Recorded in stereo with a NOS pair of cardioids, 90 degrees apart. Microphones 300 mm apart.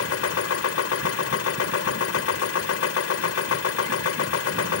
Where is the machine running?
50° left.